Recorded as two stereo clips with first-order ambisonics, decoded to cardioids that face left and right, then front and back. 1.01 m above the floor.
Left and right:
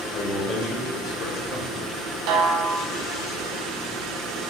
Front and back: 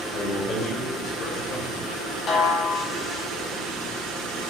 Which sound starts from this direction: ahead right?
A snare drum, at 2.3 s.